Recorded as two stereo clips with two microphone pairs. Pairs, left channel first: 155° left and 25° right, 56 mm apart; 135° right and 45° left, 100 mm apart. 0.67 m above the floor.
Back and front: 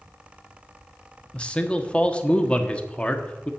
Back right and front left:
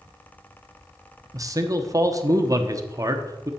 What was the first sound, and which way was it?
A man speaking, 90° left.